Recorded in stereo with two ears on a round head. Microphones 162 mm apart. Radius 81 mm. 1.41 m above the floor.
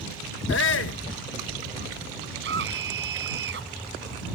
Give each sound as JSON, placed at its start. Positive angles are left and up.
{"t": 0.5, "sound": "a shout", "side_deg": 80}
{"t": 2.4, "sound": "a scream", "side_deg": -75}